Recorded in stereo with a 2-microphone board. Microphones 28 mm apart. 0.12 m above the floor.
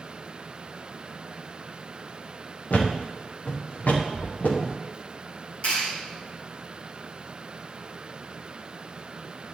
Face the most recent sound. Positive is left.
turn(degrees=40)  # may be behind; listen again after turning